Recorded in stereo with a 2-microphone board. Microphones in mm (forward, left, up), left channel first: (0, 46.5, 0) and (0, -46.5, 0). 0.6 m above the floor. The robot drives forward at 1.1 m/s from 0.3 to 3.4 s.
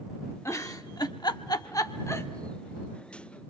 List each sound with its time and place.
0.5 s a giggle: 35° left (ahead or behind), 1.3 m; by 2.3 s 30° left (ahead or behind), 1.5 m